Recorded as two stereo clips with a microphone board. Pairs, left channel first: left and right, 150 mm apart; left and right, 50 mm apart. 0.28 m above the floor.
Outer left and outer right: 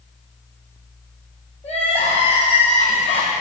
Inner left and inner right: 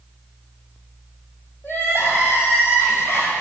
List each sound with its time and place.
1.6 s crying: 45° left (ahead or behind), 3 m